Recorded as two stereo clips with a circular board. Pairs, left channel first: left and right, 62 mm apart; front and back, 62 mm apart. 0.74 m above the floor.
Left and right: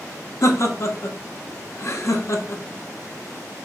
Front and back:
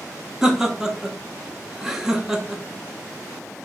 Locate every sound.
0.4 s laughter: 100° left, 0.8 m